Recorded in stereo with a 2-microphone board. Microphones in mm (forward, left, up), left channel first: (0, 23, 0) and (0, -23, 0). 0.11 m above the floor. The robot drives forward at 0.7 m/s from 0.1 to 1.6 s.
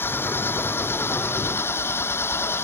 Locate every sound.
0.0 s an engine running: 55° left (ahead or behind); by 2.6 s 65° left (ahead or behind)